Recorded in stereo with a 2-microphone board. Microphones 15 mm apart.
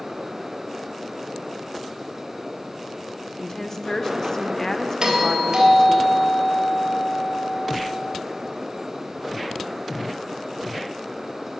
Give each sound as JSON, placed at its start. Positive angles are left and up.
{"t": 3.4, "sound": "a woman speaking", "side_deg": 25, "distance_m": 1.0}
{"t": 5.0, "sound": "a doorbell", "side_deg": -45, "distance_m": 3.0}